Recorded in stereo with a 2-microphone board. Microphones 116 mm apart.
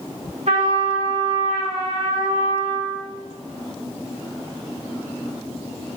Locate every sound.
0.5 s a trumpet: 80° right, 1.7 m